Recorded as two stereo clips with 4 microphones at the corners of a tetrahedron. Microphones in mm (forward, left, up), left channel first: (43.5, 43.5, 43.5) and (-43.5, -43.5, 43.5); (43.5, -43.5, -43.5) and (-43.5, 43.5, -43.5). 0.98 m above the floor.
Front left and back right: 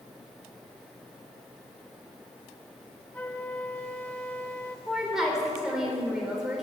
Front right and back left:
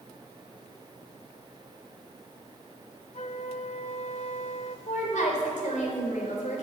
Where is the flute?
30° right, 1.1 m.